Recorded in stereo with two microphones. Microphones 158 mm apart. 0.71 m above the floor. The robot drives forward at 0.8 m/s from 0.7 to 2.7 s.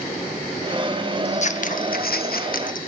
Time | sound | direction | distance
1.2 | scissors | 45° left (ahead or behind) | 1.1 m